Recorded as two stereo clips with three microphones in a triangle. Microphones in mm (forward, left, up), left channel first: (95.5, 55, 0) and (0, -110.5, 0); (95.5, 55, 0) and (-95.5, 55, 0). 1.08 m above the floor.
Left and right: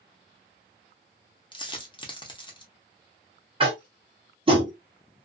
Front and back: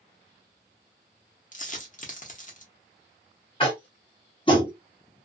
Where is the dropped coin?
5° left, 0.8 m.